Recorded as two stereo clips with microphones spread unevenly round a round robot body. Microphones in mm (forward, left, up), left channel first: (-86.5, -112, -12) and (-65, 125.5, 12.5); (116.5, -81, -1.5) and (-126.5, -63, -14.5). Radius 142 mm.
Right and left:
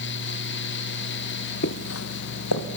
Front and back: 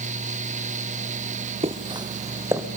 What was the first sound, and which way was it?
Footsteps, 125° right.